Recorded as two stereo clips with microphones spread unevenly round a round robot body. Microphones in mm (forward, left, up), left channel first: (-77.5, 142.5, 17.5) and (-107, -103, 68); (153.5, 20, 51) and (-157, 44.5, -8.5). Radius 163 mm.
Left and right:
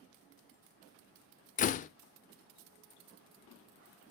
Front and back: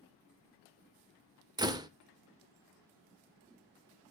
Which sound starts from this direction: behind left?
A door slam, at 1.6 s.